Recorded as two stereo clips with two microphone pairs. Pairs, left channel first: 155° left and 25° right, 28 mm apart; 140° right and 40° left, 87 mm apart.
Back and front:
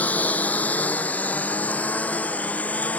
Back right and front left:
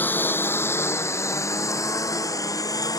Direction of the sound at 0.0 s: 155° left.